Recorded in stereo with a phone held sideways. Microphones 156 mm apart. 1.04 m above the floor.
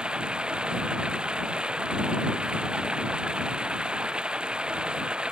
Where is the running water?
5° right (ahead or behind).